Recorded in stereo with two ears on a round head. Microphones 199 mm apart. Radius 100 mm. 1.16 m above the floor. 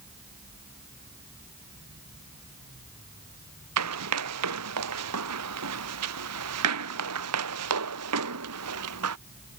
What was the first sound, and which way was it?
Running footsteps, 85° right.